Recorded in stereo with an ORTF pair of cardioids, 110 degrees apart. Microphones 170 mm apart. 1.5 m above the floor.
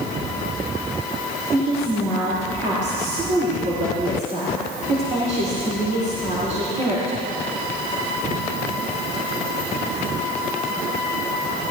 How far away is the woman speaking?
About 4.5 m.